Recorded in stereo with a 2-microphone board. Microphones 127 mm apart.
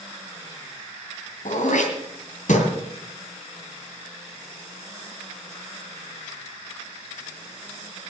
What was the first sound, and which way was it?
Throat clearing, 80° left.